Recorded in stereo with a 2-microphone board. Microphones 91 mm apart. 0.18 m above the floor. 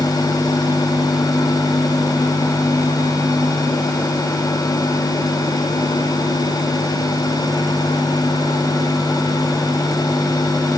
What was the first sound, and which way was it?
Only background noise.